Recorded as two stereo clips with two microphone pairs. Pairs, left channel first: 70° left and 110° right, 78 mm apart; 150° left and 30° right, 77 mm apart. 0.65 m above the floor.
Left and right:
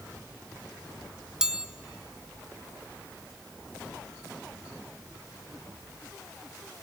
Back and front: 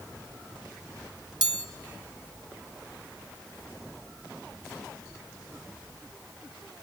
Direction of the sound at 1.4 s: 30° right.